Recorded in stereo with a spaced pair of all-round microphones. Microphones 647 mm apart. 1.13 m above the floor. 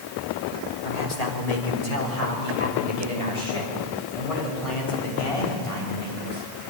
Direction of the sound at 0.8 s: 70° left (ahead or behind).